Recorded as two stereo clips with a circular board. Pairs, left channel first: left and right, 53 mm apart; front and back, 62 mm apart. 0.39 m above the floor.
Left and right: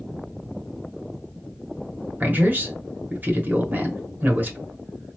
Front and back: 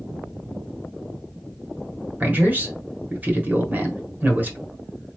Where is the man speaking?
130° right, 1.2 m.